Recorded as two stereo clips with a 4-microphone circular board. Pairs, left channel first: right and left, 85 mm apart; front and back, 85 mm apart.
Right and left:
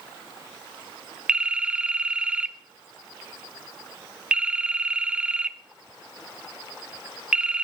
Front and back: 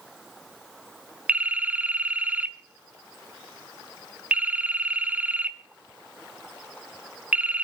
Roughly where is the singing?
I don't hear singing.